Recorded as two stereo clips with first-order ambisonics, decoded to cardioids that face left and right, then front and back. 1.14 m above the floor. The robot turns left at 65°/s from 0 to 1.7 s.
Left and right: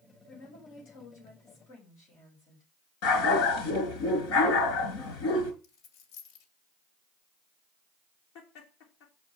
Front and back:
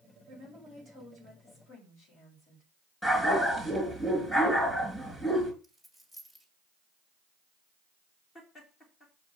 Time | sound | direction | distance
0.3 | a woman speaking | 130° left | 5 m
3.0 | a dog barking | 80° left | 4.5 m
5.6 | a dropped coin | 75° left | 2.5 m
8.3 | laughter | 60° left | 2.5 m